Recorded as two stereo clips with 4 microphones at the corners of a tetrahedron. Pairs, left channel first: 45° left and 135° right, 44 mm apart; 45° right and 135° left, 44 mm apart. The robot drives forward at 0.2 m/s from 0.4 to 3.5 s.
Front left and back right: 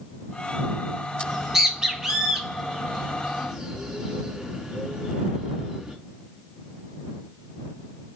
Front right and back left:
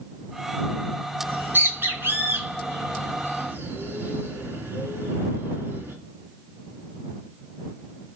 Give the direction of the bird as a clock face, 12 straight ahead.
7 o'clock.